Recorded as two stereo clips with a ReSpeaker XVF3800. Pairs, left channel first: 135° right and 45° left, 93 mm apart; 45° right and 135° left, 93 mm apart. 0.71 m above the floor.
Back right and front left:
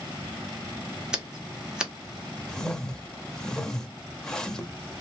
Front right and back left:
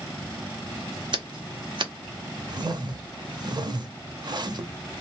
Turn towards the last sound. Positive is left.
turn(degrees=145)